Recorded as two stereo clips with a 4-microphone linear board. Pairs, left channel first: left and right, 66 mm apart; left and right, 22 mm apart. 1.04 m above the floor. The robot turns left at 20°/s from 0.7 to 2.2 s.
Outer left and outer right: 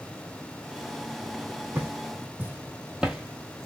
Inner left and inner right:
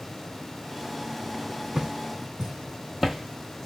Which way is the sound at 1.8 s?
25° right (ahead or behind).